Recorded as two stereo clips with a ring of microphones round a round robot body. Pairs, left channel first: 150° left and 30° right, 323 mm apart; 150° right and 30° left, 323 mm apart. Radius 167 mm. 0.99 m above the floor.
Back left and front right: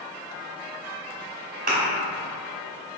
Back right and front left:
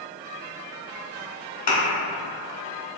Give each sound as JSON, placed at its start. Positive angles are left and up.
{"t": 1.7, "sound": "a thud", "azimuth_deg": -90, "distance_m": 1.2}